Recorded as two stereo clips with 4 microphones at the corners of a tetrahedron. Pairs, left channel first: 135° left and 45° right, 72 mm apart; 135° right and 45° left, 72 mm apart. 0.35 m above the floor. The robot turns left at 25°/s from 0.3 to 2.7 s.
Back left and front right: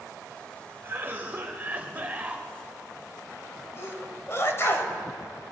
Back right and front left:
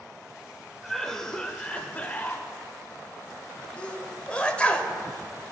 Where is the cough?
55° right, 0.9 m; by 2.5 s 95° right, 0.9 m.